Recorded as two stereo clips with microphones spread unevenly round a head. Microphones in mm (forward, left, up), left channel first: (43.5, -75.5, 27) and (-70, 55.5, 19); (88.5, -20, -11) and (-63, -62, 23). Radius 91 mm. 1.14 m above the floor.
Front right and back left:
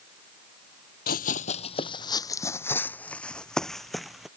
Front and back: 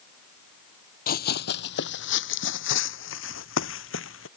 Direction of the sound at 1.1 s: 15° right.